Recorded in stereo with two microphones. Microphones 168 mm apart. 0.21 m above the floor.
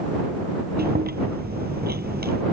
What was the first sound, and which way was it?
Chewing, 70° right (ahead or behind).